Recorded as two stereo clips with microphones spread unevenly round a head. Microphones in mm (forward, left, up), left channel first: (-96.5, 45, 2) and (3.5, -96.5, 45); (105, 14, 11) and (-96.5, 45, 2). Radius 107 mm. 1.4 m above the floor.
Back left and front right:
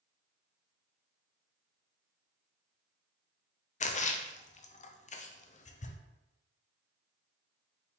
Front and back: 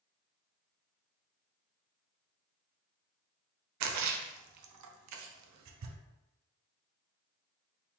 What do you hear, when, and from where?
3.8 s a splash: straight behind, 0.5 m